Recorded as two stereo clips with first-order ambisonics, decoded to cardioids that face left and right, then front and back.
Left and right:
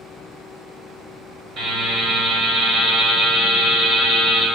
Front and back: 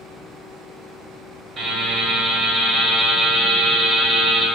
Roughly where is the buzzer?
Behind right.